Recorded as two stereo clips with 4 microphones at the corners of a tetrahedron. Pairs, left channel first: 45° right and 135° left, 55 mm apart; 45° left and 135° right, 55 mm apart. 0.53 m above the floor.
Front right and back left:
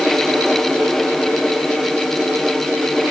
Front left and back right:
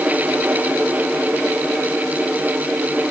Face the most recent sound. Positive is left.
No sound to turn to.